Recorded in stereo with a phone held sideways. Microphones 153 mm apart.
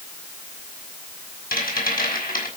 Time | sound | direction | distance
1.5 | a rattle | 80° left | 5.5 m